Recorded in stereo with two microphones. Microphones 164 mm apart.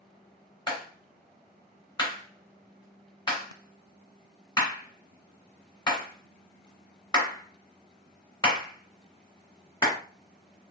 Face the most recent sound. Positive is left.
turn(degrees=25)  # may be behind; listen again after turning